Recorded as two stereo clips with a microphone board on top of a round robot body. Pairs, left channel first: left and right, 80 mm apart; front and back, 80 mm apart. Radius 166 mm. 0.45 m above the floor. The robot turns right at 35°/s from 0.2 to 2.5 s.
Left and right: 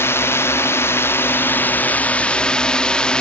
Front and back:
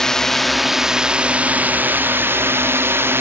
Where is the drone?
80° left; by 3.2 s 160° left.